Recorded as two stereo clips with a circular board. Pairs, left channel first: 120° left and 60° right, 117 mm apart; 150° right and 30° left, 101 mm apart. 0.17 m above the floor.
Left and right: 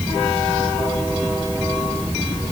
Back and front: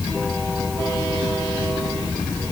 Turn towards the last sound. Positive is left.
No sound to turn to.